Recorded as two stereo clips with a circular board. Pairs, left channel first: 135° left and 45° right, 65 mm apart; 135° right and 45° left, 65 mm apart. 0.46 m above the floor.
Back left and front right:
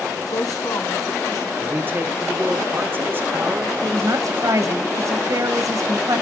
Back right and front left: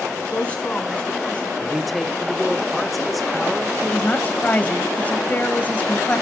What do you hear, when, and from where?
0.3 s a woman speaking: 155° left, 4 m
1.6 s a man speaking: 45° right, 0.9 m
3.8 s a woman speaking: 70° right, 2 m